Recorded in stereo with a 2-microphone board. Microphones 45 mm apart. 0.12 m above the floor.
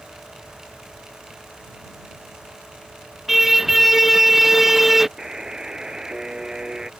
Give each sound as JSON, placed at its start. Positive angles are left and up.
{"t": 3.3, "sound": "a car horn", "side_deg": -5}
{"t": 5.2, "sound": "a buzzer", "side_deg": -15}